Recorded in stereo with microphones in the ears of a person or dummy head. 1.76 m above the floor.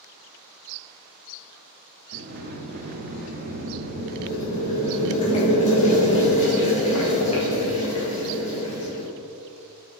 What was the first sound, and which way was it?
A sliding door, 50° right (ahead or behind).